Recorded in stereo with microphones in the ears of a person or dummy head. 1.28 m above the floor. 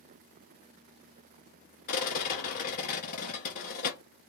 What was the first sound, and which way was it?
A rattle, 45° left (ahead or behind).